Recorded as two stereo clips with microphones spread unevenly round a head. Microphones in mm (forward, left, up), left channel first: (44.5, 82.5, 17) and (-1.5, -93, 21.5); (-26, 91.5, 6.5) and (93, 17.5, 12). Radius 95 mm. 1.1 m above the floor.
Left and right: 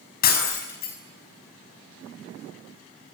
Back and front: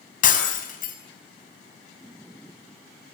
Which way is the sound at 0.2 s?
120° left.